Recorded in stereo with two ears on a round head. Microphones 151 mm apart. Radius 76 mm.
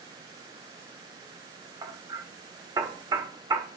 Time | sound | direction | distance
1.8 | hammering | 20° right (ahead or behind) | 0.8 m